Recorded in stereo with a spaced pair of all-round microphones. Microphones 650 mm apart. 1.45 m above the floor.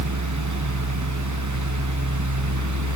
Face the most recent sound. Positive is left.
turn(degrees=-25)  # may be behind; listen again after turning